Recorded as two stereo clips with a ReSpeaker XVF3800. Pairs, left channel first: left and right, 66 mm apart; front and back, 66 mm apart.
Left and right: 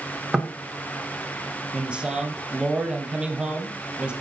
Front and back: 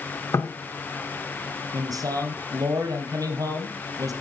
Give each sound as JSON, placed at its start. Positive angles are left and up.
{"t": 0.3, "sound": "knocking", "azimuth_deg": -10, "distance_m": 1.7}
{"t": 1.7, "sound": "a man speaking", "azimuth_deg": -165, "distance_m": 4.0}